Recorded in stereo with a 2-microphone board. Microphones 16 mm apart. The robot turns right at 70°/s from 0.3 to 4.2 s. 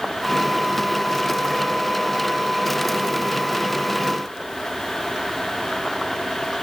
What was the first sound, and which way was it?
Only background noise.